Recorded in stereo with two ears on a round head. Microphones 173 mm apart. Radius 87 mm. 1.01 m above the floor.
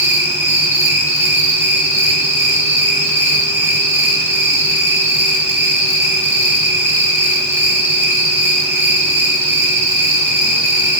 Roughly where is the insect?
Centre.